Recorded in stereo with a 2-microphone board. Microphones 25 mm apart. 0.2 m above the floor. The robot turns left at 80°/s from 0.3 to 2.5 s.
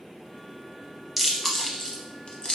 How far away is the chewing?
About 0.6 m.